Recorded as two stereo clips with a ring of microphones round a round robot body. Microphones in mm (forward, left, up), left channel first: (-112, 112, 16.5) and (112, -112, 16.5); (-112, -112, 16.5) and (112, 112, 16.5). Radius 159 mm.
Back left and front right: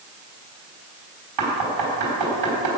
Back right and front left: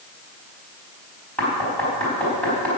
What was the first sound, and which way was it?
Knocking, 50° right.